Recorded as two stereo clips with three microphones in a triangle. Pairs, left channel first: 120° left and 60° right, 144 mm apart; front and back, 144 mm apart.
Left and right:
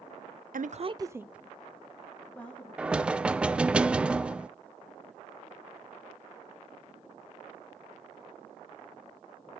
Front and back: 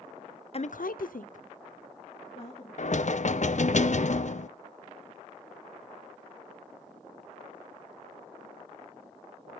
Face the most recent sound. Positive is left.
turn(degrees=20)